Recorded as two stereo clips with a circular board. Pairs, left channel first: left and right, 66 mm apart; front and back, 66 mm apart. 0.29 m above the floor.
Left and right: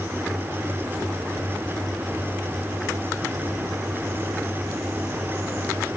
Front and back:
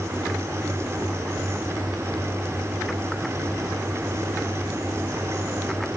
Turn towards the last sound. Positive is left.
No sound to turn to.